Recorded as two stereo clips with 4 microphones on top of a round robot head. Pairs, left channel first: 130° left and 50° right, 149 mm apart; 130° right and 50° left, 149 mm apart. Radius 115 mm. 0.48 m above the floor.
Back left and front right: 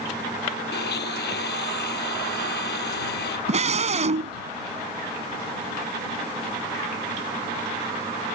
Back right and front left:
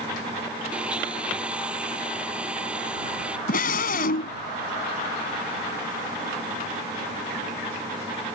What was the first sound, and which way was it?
A blender, 135° left.